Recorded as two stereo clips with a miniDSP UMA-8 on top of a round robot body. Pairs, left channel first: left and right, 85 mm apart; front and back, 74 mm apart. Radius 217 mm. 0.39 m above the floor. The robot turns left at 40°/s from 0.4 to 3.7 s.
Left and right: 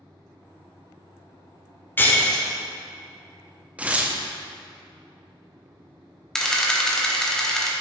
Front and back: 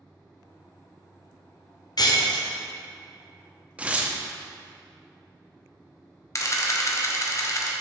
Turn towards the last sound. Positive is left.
turn(degrees=10)